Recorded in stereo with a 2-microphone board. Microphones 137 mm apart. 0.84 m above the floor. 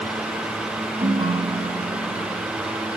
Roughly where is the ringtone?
Right.